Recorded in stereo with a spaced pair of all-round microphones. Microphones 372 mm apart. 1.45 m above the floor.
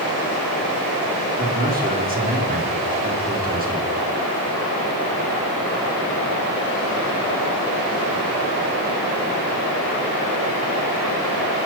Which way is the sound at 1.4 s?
25° right (ahead or behind).